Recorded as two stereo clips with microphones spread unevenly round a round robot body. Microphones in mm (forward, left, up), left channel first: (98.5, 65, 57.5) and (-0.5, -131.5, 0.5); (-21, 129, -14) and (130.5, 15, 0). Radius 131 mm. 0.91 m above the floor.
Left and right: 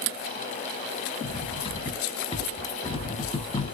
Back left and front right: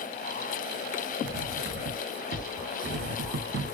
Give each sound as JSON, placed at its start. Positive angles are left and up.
{"t": 1.2, "sound": "cutlery clinking", "azimuth_deg": -5, "distance_m": 0.9}